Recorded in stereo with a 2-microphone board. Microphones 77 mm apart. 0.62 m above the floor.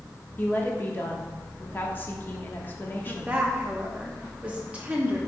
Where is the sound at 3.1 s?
15° right (ahead or behind), 1.0 m.